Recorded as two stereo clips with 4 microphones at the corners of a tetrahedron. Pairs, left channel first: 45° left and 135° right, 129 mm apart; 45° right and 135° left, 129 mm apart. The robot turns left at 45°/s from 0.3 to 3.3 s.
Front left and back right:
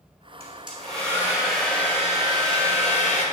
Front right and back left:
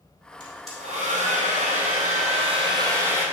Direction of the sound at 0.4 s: 175° right.